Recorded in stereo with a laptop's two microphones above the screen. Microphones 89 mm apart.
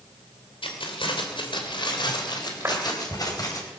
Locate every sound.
0.6 s keys jangling: 80° left, 3 m; by 3.6 s 45° left (ahead or behind), 4.5 m
2.6 s a clap: 30° right (ahead or behind), 3 m